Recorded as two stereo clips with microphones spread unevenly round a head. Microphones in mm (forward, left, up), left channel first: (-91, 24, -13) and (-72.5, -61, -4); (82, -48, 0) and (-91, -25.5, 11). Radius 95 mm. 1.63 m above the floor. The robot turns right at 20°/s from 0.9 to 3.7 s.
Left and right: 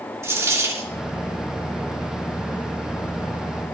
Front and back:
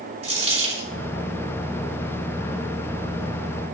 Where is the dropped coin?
135° right, 6 m.